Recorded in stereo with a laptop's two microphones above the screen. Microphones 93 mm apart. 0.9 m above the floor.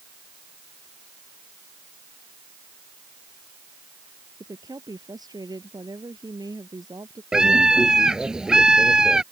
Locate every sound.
4.4 s a woman speaking: 45° right (ahead or behind)
7.3 s a scream: 5° right (ahead or behind)